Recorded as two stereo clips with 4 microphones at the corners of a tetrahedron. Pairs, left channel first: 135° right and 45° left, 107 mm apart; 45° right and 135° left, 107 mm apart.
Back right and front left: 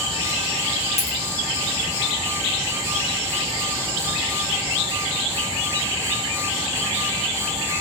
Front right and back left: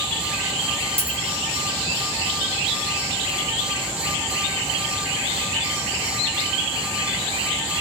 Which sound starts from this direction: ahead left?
A dropped coin, at 1.0 s.